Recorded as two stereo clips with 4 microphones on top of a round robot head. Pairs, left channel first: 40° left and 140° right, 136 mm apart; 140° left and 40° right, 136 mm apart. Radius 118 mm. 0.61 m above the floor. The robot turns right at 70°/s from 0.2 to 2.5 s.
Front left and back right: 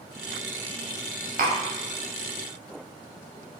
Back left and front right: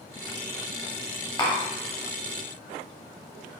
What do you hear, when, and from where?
1.4 s tapping: 160° right, 0.8 m; by 1.6 s 145° right, 0.8 m